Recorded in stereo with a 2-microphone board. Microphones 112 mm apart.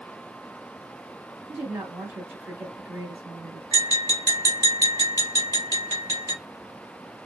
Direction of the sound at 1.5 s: 20° right (ahead or behind).